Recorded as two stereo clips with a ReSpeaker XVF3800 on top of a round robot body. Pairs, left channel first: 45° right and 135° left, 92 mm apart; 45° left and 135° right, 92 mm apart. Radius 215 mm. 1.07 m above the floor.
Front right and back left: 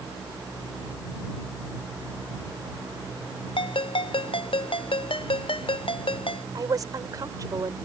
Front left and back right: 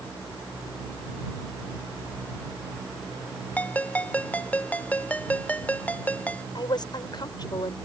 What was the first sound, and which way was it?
A ringtone, 30° right.